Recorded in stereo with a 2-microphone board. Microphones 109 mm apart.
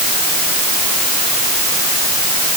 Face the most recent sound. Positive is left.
No sound to turn to.